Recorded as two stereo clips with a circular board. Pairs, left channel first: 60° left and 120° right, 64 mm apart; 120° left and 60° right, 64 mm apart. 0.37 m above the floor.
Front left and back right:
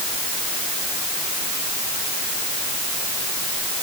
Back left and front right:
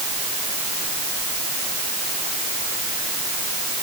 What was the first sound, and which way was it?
Only background noise.